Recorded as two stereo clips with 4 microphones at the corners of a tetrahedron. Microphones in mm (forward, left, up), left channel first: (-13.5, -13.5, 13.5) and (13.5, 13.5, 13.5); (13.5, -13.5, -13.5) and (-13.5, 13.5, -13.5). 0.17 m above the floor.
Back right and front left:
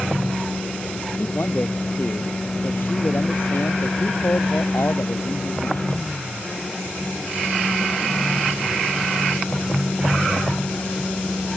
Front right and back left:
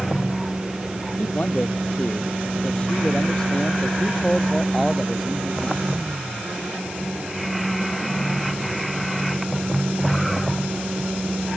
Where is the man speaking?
95° right; by 5.9 s 140° right.